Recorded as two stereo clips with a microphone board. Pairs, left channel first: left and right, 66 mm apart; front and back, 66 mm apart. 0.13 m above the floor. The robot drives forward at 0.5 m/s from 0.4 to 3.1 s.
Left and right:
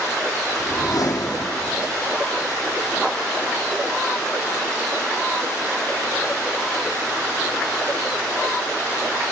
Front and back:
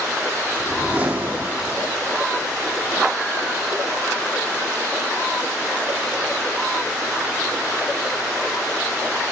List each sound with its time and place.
0.6 s a whoosh: 105° left, 1.6 m; by 1.9 s 125° left, 1.8 m